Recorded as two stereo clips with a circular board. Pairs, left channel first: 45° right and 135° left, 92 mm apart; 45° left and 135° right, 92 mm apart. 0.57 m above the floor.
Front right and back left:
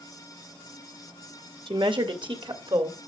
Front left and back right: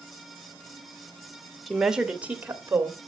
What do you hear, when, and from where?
1.7 s a woman speaking: 135° left, 1.5 m; by 3.1 s 165° left, 2.5 m